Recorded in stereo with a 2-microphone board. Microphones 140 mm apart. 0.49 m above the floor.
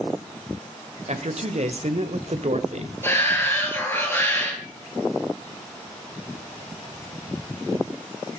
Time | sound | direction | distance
1.1 | a man speaking | 55° right (ahead or behind) | 1.6 m
3.0 | a shout | 15° left (ahead or behind) | 7.5 m